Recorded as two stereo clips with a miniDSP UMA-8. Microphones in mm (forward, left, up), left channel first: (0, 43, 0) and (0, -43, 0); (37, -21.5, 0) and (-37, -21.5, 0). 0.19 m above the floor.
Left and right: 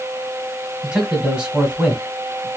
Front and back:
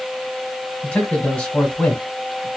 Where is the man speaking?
35° right, 1.4 m.